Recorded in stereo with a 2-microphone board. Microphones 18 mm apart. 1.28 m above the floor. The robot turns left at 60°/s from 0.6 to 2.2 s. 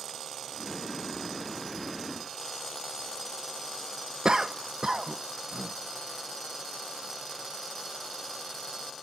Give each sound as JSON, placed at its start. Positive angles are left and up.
{"t": 4.2, "sound": "a cough", "side_deg": -40, "distance_m": 0.6}